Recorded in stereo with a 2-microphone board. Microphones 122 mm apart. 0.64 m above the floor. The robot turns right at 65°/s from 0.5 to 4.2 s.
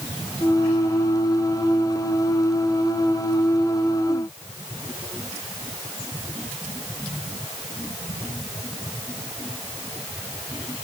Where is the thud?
No thud in this recording.